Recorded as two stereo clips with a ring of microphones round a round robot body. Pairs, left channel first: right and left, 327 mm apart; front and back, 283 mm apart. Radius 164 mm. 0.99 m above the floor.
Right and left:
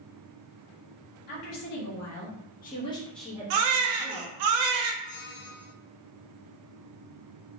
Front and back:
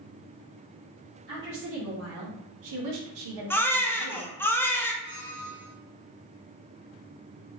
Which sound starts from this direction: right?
A squeak, at 5.0 s.